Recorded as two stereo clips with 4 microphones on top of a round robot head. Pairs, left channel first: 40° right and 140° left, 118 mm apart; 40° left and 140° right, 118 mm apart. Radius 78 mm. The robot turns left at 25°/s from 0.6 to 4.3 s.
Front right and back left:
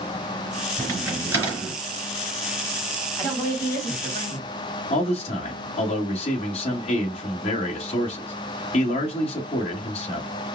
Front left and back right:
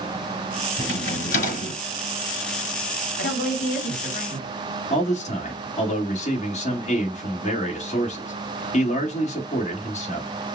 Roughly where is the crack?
Left.